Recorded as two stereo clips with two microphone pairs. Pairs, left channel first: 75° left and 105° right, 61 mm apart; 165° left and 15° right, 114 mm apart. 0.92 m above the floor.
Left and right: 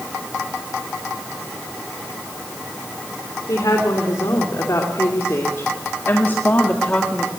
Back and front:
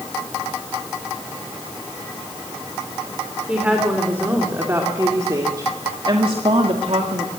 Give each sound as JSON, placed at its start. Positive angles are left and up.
{"t": 3.5, "sound": "a woman speaking", "azimuth_deg": 60, "distance_m": 3.0}